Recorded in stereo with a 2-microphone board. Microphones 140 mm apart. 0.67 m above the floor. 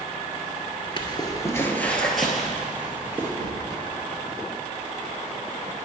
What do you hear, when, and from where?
1.0 s footsteps: 35° left (ahead or behind), 0.7 m; by 3.3 s 15° right (ahead or behind), 1.4 m
3.4 s a gunshot: 70° right (ahead or behind), 0.5 m